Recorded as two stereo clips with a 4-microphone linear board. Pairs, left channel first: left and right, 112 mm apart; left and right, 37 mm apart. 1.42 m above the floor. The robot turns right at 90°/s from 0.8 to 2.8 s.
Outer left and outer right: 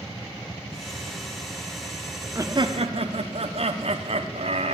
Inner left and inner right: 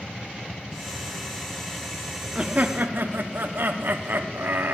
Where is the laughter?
155° right, 0.7 m; by 4.7 s 115° right, 0.7 m.